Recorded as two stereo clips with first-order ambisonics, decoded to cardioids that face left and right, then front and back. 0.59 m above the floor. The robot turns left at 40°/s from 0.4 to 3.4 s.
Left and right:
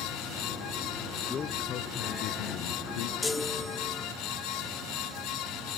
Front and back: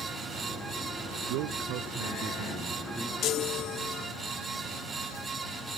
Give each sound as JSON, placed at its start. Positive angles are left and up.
{"t": 1.3, "sound": "a man speaking", "azimuth_deg": 160}
{"t": 3.2, "sound": "a chime", "azimuth_deg": 15}